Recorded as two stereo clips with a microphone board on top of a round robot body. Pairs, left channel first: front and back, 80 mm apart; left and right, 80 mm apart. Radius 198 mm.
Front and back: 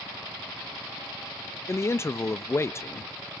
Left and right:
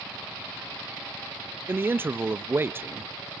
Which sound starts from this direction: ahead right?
A man speaking, at 1.7 s.